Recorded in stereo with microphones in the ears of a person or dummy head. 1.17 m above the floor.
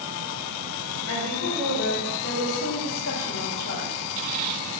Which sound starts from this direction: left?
A woman speaking, at 1.1 s.